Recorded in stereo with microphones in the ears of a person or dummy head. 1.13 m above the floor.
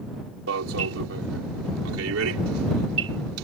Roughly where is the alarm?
Right.